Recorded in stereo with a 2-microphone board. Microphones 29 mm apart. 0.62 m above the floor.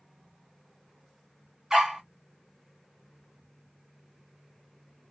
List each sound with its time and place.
1.7 s a dog barking: 20° right (ahead or behind), 1.7 m